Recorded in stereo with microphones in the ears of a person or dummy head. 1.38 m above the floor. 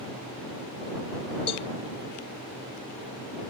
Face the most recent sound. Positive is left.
turn(degrees=30)  # may be behind; listen again after turning